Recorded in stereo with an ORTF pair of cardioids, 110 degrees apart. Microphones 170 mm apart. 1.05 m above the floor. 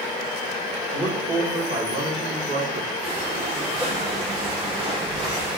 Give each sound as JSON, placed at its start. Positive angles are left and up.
{"t": 0.9, "sound": "a man speaking", "azimuth_deg": -30, "distance_m": 3.0}
{"t": 3.0, "sound": "breathing", "azimuth_deg": -35, "distance_m": 2.5}